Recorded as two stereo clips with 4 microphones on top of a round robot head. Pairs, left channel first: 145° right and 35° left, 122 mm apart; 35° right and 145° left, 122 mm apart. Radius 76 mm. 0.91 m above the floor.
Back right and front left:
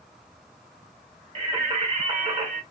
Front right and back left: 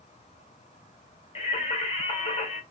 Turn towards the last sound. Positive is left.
turn(degrees=0)